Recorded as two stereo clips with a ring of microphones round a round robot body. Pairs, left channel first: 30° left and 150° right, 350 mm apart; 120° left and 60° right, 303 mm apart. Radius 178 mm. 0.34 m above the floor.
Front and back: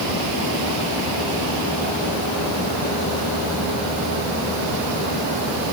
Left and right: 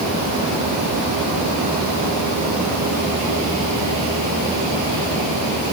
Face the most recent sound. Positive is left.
No sound to turn to.